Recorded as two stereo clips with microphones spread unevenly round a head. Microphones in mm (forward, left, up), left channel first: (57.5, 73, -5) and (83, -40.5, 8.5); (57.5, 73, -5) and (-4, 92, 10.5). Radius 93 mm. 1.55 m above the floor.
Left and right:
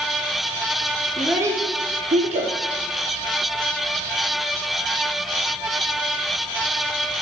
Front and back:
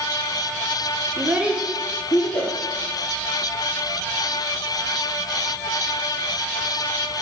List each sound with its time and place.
1.2 s a child speaking: 165° right, 0.5 m; by 2.5 s 75° right, 0.9 m